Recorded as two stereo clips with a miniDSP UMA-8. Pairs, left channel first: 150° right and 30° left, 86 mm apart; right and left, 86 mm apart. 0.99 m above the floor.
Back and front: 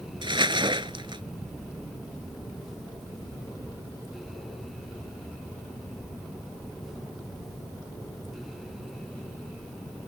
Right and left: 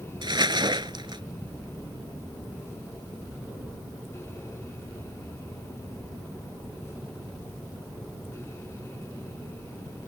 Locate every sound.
0.2 s crumpling: 55° left